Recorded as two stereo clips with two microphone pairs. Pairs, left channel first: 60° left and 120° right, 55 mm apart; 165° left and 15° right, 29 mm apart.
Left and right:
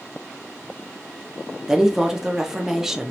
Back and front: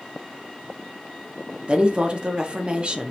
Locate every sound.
1.7 s a woman speaking: 40° right, 0.5 m